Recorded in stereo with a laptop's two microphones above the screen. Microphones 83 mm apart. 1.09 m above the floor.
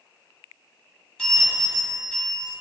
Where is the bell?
10° left (ahead or behind), 1.8 m.